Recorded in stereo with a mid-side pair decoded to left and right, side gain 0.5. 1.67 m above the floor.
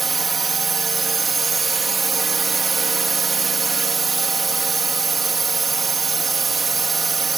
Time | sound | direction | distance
0.0 | a drone | 30° right | ?